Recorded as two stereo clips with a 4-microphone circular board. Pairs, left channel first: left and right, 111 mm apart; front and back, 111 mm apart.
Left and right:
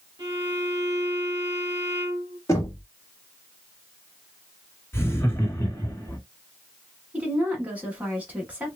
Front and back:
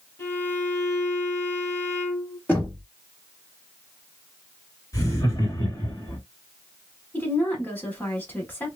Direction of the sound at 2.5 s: 60° left.